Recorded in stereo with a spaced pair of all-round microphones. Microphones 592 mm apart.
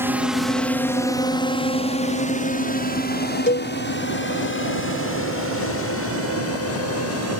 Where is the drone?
5° right (ahead or behind); by 7.4 s 20° left (ahead or behind).